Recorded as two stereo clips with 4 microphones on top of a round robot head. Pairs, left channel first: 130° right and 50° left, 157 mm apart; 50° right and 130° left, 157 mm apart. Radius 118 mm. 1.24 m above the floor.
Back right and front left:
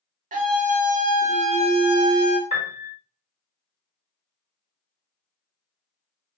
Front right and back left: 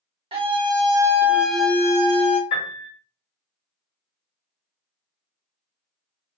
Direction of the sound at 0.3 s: 80° left.